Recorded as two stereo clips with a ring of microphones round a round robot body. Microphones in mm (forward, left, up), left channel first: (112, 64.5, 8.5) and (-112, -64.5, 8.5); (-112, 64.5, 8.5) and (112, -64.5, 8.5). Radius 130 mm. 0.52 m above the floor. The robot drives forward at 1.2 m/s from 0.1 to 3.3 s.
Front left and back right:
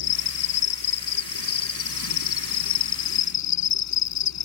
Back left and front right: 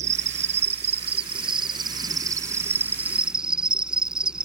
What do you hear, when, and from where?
0.0 s an insect: 35° left; by 4.5 s 55° left